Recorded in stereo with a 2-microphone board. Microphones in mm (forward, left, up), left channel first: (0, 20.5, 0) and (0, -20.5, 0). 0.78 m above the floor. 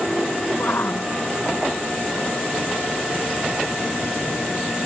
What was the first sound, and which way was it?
A shout, 60° left (ahead or behind).